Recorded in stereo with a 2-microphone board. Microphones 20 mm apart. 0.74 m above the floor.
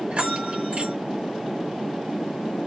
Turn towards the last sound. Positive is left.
turn(degrees=-50)  # may be behind; listen again after turning